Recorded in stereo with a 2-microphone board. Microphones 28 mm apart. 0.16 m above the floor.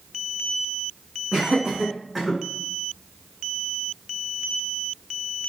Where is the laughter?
40° right (ahead or behind), 1.6 m; by 2.4 s 15° right (ahead or behind), 1.6 m.